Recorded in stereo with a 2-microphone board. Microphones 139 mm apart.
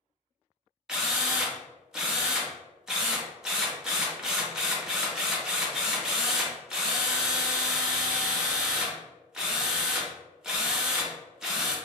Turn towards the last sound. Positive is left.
turn(degrees=-5)  # may be behind; listen again after turning